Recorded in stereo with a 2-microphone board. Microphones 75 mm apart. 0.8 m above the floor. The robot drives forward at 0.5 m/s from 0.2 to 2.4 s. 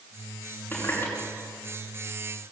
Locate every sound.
0.7 s a running tap: 20° left (ahead or behind), 5.5 m; by 1.1 s 25° left (ahead or behind), 5 m